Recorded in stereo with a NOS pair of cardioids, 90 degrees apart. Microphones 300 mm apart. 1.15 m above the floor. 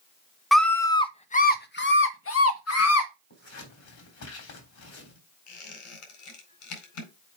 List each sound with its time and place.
0.5 s a scream: straight ahead, 1.1 m; by 3.1 s 60° left, 1.9 m
3.3 s scissors: 65° left, 3.5 m
5.5 s a squeak: 65° left, 4 m